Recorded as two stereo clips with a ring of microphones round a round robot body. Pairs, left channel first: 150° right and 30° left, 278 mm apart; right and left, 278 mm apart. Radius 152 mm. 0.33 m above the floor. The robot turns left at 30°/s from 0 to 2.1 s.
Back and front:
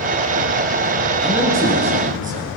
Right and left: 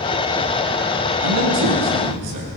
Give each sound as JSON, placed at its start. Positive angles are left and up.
{"t": 1.2, "sound": "a man speaking", "azimuth_deg": 120, "distance_m": 6.5}